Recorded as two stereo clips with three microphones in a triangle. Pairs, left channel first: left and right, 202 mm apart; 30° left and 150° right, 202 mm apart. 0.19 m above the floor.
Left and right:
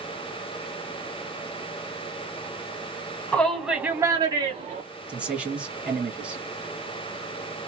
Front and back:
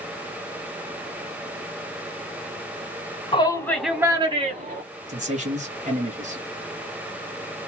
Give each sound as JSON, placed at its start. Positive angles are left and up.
{"t": 3.3, "sound": "a shout", "azimuth_deg": 15, "distance_m": 1.5}
{"t": 5.1, "sound": "a man speaking", "azimuth_deg": -170, "distance_m": 1.9}